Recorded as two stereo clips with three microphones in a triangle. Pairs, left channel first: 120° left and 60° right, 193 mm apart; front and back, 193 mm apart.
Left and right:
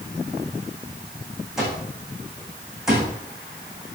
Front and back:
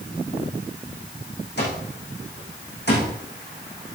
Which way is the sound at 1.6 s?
25° left.